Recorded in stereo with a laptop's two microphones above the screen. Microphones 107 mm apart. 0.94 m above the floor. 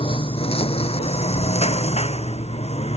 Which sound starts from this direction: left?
A lawn mower, at 0.0 s.